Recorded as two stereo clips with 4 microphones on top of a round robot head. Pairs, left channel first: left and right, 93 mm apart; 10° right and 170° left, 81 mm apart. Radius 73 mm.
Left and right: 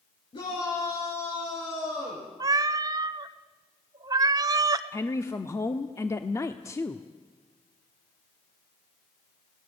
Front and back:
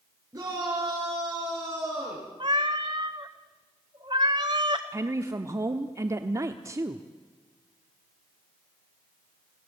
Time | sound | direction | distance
0.3 | a shout | 120° left | 7.5 m
2.4 | a cat meowing | 135° right | 0.7 m
4.9 | a woman speaking | 135° left | 1.0 m